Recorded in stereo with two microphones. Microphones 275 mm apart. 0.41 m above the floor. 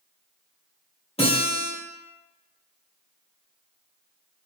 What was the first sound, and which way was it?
A guitar, 20° left (ahead or behind).